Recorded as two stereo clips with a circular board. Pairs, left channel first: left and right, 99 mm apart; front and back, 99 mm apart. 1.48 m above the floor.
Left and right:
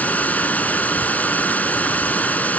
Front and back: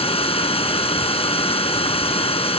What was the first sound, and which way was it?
Running water, 15° left.